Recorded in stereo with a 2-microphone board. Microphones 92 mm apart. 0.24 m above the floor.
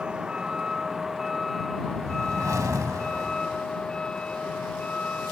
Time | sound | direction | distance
0.0 | a vehicle | 10° right (ahead or behind) | ?
1.8 | a whoosh | 35° right (ahead or behind) | ?